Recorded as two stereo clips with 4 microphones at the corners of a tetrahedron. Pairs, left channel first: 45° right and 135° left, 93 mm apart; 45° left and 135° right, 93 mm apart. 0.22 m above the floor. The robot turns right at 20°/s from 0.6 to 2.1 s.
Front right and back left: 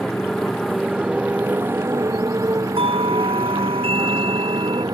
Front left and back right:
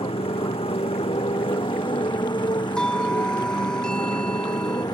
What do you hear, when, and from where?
0.0 s a motorcycle: 40° left; by 5.0 s 85° left
2.8 s a doorbell: 125° left